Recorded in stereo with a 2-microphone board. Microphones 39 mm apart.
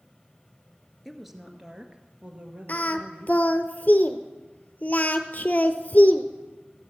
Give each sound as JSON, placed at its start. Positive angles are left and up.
{"t": 1.1, "sound": "a woman speaking", "side_deg": 0, "distance_m": 1.4}
{"t": 2.7, "sound": "singing", "side_deg": 45, "distance_m": 0.9}